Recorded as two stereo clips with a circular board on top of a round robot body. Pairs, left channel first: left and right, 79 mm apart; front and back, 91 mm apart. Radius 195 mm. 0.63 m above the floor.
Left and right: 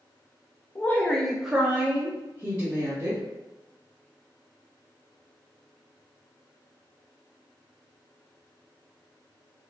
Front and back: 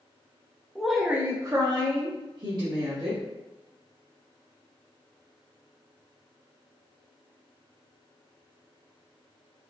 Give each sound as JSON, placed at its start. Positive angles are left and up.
{"t": 0.8, "sound": "a woman speaking", "azimuth_deg": 75, "distance_m": 0.6}